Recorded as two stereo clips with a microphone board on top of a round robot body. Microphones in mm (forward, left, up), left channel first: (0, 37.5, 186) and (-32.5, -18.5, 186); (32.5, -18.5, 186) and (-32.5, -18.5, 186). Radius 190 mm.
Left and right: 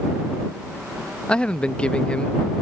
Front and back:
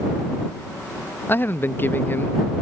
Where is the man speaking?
Straight ahead.